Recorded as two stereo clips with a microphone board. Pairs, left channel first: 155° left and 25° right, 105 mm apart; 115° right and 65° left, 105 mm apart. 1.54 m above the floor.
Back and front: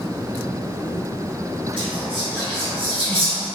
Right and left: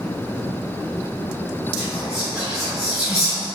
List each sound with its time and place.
1.8 s whispering: 55° right, 1.6 m